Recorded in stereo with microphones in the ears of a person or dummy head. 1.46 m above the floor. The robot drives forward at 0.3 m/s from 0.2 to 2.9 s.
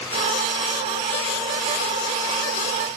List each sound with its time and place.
Only background noise.